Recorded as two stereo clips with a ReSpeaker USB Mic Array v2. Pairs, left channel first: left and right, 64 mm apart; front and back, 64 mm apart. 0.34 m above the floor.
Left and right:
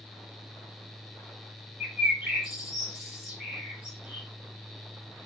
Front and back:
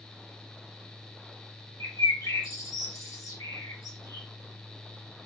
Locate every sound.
1.8 s a bird: 15° right, 1.8 m